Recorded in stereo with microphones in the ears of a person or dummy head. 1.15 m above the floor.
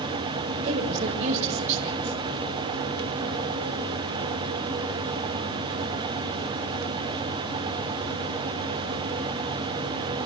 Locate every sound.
0.6 s a woman speaking: 45° right (ahead or behind), 5 m